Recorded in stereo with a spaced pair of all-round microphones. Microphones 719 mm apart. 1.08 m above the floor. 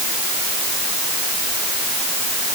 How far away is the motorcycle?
No motorcycle in this recording.